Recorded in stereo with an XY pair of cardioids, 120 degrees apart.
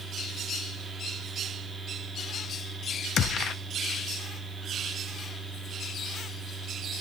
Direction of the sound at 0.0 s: 10° right.